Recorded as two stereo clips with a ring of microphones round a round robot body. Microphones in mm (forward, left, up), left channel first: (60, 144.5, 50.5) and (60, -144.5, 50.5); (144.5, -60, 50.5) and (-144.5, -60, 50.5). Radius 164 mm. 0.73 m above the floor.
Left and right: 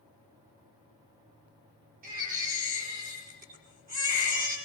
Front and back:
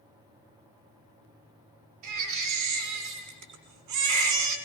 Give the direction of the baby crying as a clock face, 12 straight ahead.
5 o'clock.